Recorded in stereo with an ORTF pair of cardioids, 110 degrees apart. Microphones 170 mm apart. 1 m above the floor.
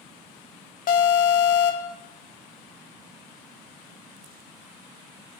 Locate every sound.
0.9 s an alarm: 60° left, 2 m